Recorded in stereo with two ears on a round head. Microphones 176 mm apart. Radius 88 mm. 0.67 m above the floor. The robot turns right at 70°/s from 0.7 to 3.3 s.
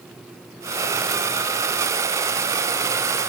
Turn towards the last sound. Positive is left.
No sound to turn to.